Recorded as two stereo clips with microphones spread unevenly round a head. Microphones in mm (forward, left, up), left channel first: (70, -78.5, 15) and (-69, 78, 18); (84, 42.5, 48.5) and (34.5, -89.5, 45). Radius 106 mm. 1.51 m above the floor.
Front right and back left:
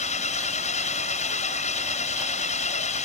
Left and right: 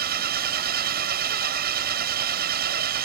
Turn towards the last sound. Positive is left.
turn(degrees=-105)